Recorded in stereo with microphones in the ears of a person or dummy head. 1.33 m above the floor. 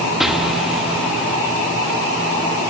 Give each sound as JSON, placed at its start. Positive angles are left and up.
{"t": 0.2, "sound": "an explosion", "side_deg": -5, "distance_m": 1.0}